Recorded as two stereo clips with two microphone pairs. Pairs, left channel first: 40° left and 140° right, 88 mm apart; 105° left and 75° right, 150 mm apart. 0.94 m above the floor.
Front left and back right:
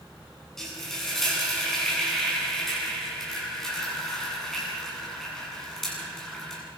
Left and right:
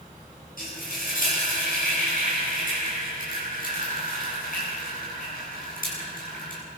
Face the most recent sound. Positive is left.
turn(degrees=125)